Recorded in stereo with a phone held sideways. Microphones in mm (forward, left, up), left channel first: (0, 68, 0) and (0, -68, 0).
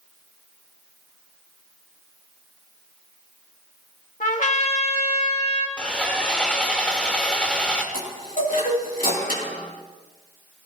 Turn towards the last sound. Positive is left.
turn(degrees=80)